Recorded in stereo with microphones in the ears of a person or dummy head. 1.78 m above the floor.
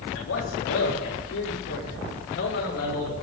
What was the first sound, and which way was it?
A man speaking, 75° left (ahead or behind).